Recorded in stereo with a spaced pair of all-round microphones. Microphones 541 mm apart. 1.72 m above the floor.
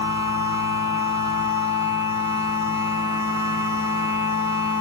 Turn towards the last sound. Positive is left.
turn(degrees=65)  # may be behind; listen again after turning